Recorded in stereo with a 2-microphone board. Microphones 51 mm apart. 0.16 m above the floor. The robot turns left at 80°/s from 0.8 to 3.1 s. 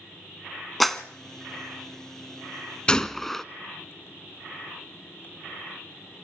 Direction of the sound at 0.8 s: Centre (ahead or behind).